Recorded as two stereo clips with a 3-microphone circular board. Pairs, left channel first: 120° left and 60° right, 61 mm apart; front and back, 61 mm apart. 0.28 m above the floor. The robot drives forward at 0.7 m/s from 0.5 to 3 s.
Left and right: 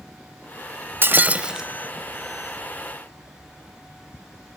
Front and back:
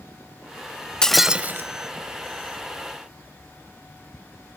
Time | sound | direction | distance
1.0 | breaking glass | 70° right | 0.5 m